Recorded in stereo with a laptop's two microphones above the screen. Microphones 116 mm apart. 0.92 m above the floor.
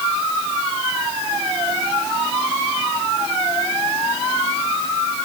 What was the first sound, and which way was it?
Only background noise.